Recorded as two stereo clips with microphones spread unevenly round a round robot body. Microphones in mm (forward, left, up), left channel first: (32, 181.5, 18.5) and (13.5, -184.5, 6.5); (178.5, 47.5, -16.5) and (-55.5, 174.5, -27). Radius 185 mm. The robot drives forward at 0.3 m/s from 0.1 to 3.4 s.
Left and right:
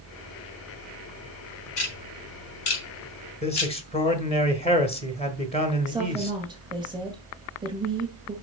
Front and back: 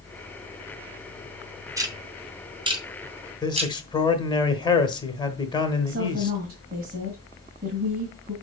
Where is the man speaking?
30° left, 1.3 m.